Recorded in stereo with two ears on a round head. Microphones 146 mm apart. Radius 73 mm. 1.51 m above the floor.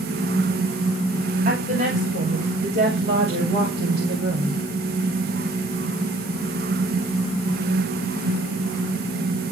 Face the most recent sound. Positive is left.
turn(degrees=-85)